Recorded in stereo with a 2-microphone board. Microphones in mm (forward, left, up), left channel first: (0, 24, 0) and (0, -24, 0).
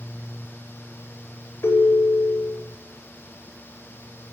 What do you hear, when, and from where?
1.6 s a ringtone: 60° left (ahead or behind), 1.1 m